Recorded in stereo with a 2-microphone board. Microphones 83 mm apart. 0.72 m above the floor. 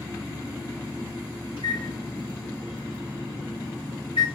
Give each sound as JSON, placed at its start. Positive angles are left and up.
{"t": 1.6, "sound": "a microwave", "side_deg": 85, "distance_m": 5.5}